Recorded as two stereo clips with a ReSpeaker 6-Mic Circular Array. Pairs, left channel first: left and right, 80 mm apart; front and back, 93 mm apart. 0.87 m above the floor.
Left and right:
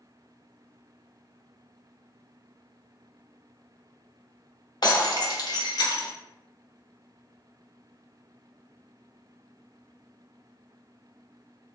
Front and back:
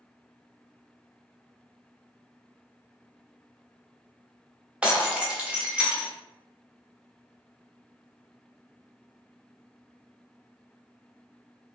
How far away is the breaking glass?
About 0.7 m.